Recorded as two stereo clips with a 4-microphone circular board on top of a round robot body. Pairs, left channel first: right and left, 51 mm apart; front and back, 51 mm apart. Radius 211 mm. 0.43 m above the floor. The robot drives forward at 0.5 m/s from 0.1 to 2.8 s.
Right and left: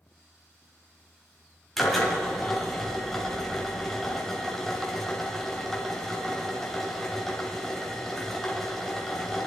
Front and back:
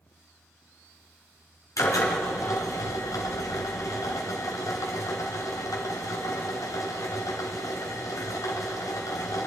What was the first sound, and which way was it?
A drill, 5° right.